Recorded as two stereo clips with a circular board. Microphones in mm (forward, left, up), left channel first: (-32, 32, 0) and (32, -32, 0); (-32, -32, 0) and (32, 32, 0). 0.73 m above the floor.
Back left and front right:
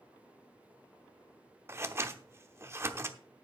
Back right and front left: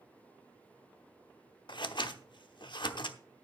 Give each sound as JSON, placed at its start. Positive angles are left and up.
{"t": 1.7, "sound": "scissors", "azimuth_deg": -105, "distance_m": 0.9}